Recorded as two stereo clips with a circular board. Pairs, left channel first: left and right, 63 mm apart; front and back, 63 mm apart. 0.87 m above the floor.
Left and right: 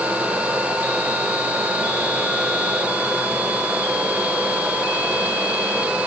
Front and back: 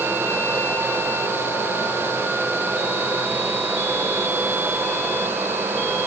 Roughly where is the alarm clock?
I don't hear an alarm clock.